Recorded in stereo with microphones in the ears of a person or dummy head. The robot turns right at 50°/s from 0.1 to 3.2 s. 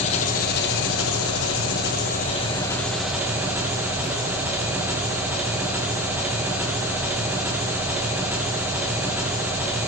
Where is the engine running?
35° left, 1.3 m; by 9.9 s 170° right, 1.3 m.